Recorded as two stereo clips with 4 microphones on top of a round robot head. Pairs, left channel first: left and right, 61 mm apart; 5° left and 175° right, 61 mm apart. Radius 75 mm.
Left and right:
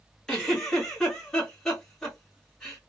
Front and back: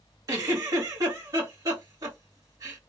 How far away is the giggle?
About 2.5 m.